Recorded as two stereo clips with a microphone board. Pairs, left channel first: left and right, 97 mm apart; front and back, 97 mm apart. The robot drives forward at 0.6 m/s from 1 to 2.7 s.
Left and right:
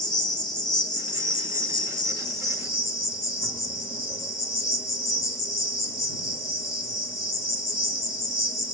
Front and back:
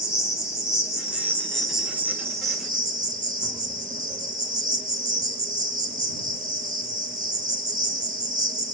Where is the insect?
55° left, 0.8 m; by 8.7 s 140° left, 0.9 m.